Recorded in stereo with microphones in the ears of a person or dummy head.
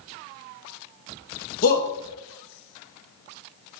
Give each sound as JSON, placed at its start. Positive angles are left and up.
{"t": 1.6, "sound": "a shout", "side_deg": 45, "distance_m": 1.1}